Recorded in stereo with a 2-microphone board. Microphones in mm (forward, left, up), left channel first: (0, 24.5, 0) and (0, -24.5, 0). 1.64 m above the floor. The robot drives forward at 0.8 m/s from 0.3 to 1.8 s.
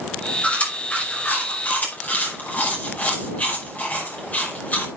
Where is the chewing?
30° left (ahead or behind), 6 m; by 4.9 s 35° left (ahead or behind), 5 m.